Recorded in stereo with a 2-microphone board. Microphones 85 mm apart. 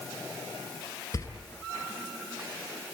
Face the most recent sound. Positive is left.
turn(degrees=40)  # may be behind; listen again after turning